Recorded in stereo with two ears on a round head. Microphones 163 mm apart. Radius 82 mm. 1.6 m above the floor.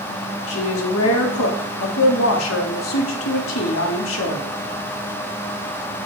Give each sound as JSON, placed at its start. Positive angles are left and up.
{"t": 0.5, "sound": "a woman speaking", "side_deg": 85, "distance_m": 0.7}